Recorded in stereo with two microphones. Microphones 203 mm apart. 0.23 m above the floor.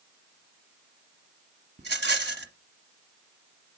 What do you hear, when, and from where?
1.8 s a rattle: 55° right (ahead or behind), 1.0 m